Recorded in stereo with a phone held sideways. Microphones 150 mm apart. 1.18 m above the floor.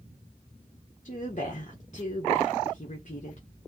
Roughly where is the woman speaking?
Left.